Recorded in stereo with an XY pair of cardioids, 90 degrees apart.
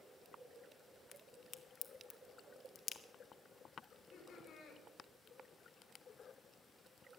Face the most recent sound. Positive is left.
turn(degrees=60)